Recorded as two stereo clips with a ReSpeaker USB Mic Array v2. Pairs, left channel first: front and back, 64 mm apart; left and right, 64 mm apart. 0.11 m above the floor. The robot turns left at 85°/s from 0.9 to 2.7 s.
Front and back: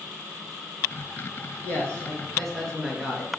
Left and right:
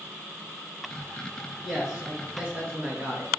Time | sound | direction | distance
1.6 | a man speaking | straight ahead | 1.3 m